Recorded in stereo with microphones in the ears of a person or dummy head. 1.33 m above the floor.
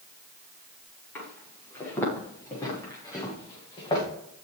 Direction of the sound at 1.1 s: 15° left (ahead or behind).